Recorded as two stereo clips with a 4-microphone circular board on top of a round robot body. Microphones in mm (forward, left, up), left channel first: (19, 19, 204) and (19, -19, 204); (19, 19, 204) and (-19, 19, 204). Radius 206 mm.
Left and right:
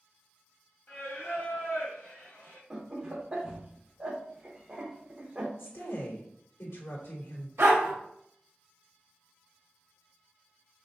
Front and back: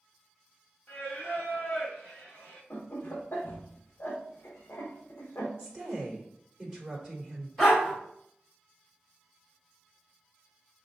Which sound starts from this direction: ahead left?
Singing, at 0.9 s.